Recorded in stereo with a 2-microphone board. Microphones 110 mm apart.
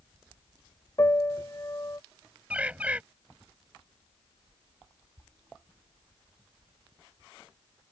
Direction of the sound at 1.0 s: 35° left (ahead or behind).